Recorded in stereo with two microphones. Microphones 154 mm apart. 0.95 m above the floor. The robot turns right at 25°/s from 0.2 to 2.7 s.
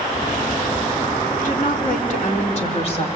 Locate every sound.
1.4 s a woman speaking: 100° left, 3 m; by 3.0 s 135° left, 3 m